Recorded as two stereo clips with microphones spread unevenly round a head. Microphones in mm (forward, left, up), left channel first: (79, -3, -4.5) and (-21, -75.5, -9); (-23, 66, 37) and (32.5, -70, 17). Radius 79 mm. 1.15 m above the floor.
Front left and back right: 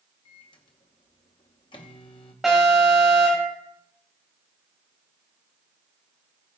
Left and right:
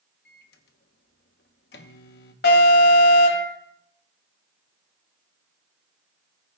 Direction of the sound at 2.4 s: 130° left.